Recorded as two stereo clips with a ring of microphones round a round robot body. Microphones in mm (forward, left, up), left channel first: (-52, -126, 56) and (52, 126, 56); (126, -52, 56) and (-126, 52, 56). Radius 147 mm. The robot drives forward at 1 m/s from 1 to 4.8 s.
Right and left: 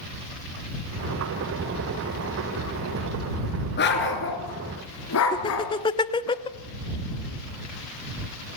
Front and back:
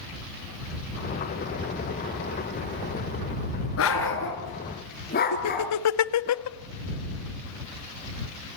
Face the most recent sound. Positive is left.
turn(degrees=-40)